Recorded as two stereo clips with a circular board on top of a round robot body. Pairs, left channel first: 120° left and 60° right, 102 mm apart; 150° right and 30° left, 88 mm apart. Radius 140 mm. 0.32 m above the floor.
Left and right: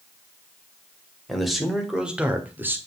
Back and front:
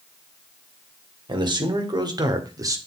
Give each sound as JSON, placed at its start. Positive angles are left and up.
{"t": 1.3, "sound": "a man speaking", "azimuth_deg": 30, "distance_m": 2.5}